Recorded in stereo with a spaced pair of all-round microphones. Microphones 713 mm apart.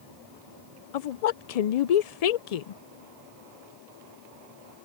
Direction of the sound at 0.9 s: 65° left (ahead or behind).